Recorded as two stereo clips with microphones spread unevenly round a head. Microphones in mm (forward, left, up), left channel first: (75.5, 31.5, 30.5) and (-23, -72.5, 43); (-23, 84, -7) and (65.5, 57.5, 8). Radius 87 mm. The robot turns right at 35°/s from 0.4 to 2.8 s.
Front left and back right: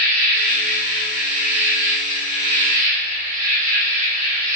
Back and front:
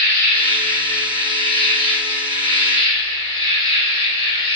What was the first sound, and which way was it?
An insect, 100° left.